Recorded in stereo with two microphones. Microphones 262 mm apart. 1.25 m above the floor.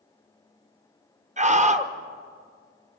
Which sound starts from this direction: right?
A scream, at 1.4 s.